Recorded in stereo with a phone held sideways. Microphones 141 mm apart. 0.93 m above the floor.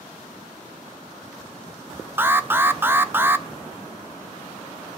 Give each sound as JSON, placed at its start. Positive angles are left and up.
{"t": 2.2, "sound": "an alarm", "side_deg": -15, "distance_m": 0.9}